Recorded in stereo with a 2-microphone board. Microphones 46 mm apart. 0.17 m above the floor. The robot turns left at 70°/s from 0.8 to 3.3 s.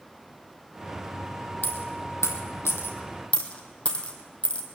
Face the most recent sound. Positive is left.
turn(degrees=25)  # may be behind; listen again after turning